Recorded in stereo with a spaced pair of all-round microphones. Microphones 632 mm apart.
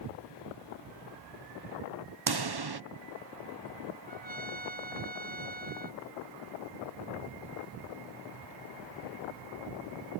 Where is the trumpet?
75° right (ahead or behind).